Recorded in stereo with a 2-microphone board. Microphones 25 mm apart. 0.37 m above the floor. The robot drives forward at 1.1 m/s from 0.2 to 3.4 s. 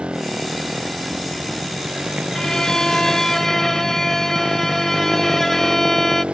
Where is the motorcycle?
50° right (ahead or behind); by 6.3 s 55° right (ahead or behind).